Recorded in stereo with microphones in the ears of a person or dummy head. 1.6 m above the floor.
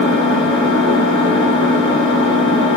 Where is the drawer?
No drawer in this recording.